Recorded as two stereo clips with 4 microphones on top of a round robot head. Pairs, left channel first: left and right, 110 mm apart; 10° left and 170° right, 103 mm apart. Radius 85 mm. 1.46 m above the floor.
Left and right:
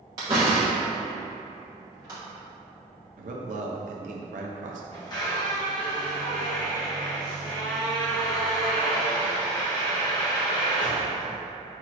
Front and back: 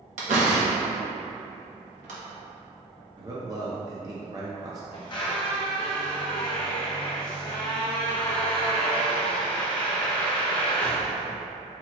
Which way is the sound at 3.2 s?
105° right.